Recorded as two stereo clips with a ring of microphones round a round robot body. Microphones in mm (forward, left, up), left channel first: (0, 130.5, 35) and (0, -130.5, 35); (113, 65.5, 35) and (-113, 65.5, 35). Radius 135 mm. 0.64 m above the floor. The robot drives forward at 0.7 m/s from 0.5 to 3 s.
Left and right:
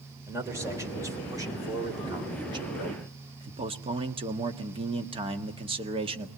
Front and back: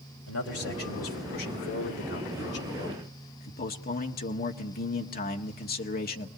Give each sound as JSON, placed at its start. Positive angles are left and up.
{"t": 0.3, "sound": "a man speaking", "azimuth_deg": -10, "distance_m": 3.0}